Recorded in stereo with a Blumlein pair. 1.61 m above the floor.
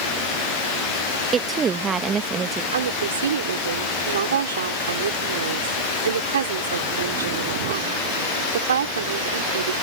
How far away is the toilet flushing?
No toilet flushing in this recording.